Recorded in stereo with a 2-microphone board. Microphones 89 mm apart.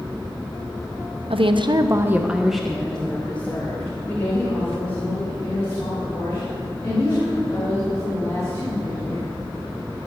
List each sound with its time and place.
1.3 s a woman speaking: 85° right, 0.9 m; by 9.3 s 30° left (ahead or behind), 9 m